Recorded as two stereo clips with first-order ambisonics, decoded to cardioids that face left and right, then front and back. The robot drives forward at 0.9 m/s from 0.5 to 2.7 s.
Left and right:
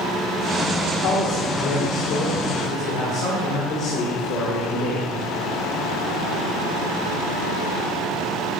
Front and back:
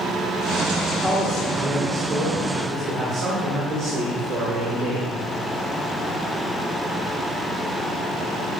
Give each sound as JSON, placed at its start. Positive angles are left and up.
{"t": 0.9, "sound": "a man speaking", "azimuth_deg": 75, "distance_m": 1.7}